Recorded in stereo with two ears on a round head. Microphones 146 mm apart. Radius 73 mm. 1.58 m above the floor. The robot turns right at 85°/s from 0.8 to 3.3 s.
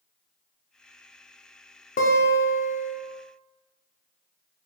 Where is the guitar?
55° left, 0.6 m; by 3.0 s 140° left, 0.6 m.